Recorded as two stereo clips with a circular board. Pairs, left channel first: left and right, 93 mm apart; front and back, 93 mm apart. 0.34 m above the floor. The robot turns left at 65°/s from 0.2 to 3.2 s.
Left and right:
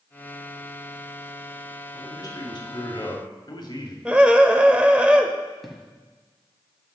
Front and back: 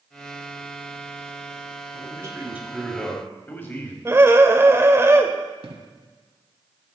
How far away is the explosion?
About 0.9 m.